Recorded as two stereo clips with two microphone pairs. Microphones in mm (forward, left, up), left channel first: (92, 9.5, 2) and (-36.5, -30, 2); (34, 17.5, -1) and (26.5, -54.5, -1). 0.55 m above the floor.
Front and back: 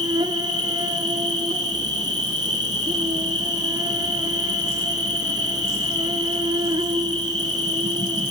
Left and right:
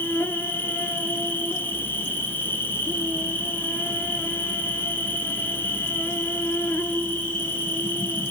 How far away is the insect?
About 1.2 m.